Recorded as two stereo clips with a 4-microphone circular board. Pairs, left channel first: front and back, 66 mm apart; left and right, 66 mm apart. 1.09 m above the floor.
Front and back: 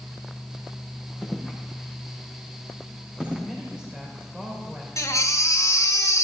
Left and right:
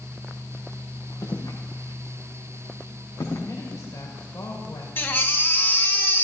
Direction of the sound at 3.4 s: 105° left.